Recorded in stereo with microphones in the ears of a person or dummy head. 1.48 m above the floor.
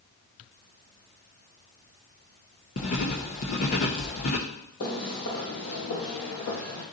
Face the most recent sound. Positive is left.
turn(degrees=65)  # may be behind; listen again after turning